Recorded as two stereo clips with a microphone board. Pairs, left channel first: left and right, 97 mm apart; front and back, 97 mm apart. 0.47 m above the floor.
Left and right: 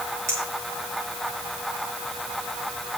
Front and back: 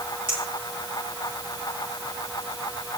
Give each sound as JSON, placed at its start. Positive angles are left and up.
{"t": 0.3, "sound": "a clink", "azimuth_deg": -150, "distance_m": 7.5}